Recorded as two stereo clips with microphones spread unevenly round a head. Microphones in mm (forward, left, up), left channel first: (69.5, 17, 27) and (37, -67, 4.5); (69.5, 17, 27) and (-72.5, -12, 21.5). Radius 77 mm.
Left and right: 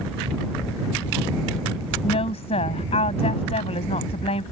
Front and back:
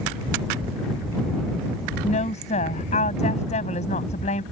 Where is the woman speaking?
60° left.